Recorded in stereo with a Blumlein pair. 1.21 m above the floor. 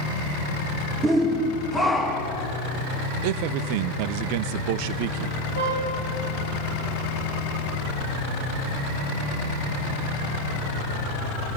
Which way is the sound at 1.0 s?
15° right.